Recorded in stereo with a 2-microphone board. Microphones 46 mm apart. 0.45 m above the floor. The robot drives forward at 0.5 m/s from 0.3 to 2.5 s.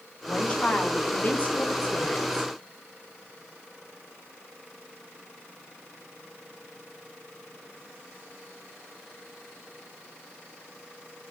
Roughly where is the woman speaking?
Left.